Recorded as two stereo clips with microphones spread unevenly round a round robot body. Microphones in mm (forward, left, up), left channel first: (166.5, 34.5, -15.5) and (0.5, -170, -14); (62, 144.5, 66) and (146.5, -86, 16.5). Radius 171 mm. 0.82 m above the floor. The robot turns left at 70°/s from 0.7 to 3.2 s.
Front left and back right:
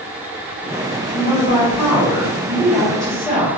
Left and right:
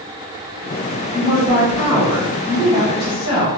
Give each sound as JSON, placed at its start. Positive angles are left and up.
{"t": 1.1, "sound": "a woman speaking", "azimuth_deg": -75, "distance_m": 1.1}